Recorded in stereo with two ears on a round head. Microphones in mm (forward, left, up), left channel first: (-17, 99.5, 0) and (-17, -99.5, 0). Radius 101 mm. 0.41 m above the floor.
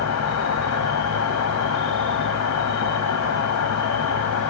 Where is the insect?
75° left (ahead or behind), 1.3 m.